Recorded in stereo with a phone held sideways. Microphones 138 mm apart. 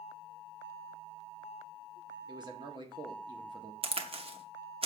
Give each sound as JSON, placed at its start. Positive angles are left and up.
{"t": 2.3, "sound": "a man speaking", "side_deg": -35, "distance_m": 1.5}
{"t": 3.8, "sound": "a crack", "side_deg": -40, "distance_m": 0.8}